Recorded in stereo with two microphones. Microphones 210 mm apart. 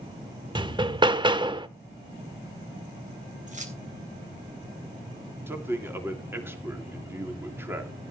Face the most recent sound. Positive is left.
turn(degrees=-10)  # may be behind; listen again after turning